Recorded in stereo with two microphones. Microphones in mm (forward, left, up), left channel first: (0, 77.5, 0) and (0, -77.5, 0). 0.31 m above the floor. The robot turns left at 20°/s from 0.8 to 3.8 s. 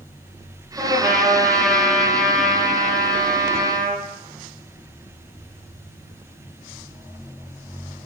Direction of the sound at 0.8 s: 5° right (ahead or behind).